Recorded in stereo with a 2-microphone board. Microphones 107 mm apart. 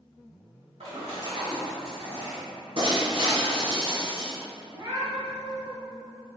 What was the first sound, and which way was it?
A splash, 85° right.